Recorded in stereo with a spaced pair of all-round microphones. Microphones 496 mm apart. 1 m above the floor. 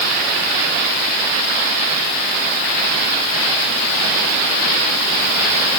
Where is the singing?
No singing in this recording.